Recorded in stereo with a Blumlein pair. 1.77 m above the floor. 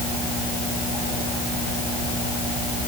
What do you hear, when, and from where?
Only background noise.